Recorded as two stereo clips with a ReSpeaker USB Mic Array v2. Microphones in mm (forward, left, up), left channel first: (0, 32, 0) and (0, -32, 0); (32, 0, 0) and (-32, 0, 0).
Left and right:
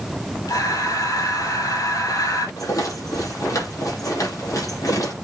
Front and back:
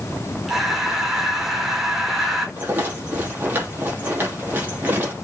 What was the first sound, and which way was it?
Breathing, 95° left.